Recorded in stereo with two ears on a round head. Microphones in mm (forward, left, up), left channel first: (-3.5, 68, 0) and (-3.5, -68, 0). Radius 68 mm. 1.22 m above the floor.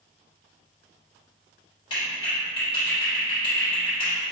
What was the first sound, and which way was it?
A clap, 30° left (ahead or behind).